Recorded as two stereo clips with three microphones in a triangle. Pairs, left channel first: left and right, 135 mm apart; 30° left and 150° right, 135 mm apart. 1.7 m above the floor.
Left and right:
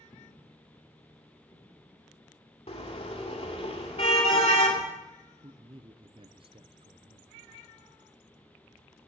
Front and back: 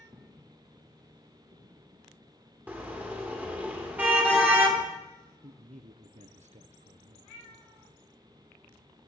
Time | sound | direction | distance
0.1 | footsteps | 150° left | 2.5 m
2.7 | a car horn | 135° left | 2.5 m
5.4 | a man speaking | 135° right | 0.8 m